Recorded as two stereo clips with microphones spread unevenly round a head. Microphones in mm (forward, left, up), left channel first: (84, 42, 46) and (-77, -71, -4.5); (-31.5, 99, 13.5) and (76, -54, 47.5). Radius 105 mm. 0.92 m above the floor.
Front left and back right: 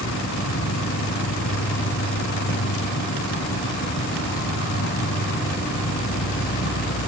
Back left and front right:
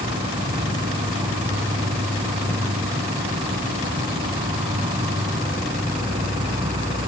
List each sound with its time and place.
0.0 s an insect: 10° left